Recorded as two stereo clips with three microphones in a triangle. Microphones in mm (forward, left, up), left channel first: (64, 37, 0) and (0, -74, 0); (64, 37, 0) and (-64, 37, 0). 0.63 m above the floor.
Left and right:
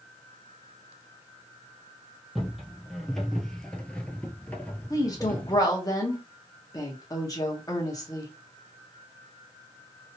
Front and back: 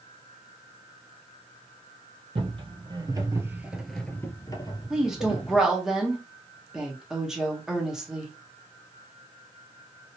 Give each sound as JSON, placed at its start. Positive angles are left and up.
{"t": 2.4, "sound": "footsteps", "azimuth_deg": 155, "distance_m": 1.0}
{"t": 4.9, "sound": "a woman speaking", "azimuth_deg": 95, "distance_m": 1.1}